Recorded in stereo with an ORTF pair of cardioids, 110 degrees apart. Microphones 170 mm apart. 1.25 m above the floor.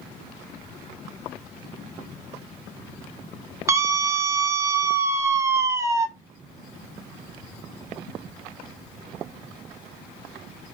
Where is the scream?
15° right, 0.7 m.